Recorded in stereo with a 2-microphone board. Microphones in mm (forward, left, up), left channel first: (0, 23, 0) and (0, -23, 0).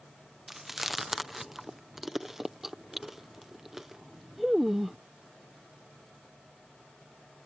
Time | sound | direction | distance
0.5 | chewing | 5° right (ahead or behind) | ?